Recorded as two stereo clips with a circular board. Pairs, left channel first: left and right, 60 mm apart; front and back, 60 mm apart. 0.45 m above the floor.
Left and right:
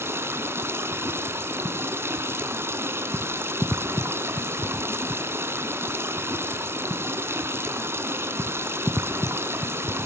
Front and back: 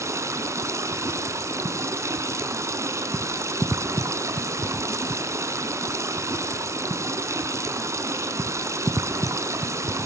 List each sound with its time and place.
0.0 s running water: 140° right, 1.4 m